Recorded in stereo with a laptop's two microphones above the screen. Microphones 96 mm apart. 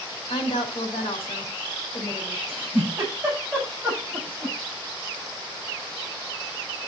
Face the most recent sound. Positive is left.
turn(degrees=-15)  # may be behind; listen again after turning